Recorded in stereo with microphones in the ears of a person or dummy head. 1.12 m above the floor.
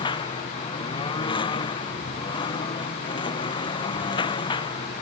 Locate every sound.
0.0 s a lawn mower: 30° left (ahead or behind)